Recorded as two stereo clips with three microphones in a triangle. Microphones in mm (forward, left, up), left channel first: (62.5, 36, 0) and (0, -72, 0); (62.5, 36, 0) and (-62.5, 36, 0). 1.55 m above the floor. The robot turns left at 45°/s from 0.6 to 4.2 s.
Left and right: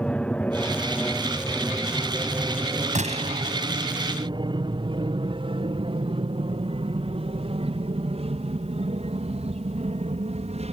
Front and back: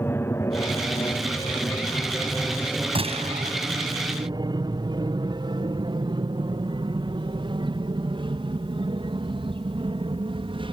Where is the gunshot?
140° right; by 3.5 s 165° right.